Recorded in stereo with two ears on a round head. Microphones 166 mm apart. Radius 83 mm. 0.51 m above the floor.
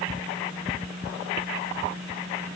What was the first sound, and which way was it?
Only background noise.